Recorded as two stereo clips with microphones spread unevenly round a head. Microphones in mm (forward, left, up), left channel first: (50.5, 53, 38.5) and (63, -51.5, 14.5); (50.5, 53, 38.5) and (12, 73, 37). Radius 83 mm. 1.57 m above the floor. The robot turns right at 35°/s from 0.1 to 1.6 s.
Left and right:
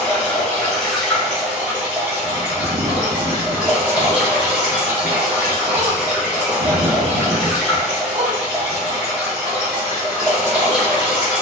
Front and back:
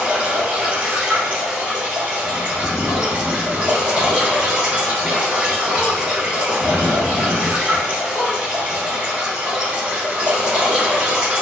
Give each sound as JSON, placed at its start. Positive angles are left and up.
{"t": 0.0, "sound": "running water", "azimuth_deg": 120, "distance_m": 0.7}
{"t": 2.2, "sound": "a bird", "azimuth_deg": -60, "distance_m": 0.6}